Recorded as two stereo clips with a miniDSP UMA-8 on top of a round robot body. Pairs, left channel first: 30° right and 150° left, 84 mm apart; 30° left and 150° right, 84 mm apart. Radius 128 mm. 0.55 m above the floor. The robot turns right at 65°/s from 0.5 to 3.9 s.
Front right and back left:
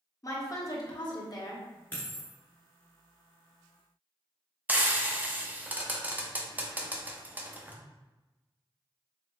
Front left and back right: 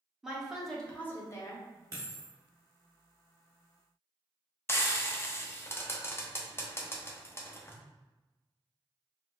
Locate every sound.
0.2 s a woman speaking: 65° right, 1.5 m; by 1.7 s 10° left, 1.5 m
1.9 s a dropped coin: 100° right, 1.2 m; by 2.3 s 75° right, 1.2 m
4.7 s frying: 85° left, 0.9 m